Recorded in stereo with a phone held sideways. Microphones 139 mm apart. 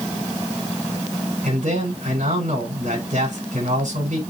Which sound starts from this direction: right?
A man speaking, at 1.4 s.